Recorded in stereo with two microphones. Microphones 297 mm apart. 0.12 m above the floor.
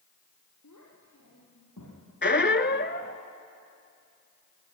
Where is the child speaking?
70° left (ahead or behind), 3.5 m; by 2.0 s 75° left (ahead or behind), 5.5 m.